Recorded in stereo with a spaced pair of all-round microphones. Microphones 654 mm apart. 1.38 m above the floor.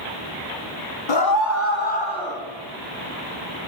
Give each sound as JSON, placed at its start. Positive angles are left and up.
{"t": 1.1, "sound": "a scream", "side_deg": 45, "distance_m": 0.9}